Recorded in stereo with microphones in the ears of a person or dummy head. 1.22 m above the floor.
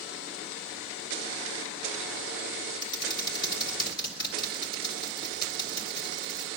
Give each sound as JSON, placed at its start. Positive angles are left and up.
{"t": 2.8, "sound": "typing on a keyboard", "side_deg": 20, "distance_m": 2.5}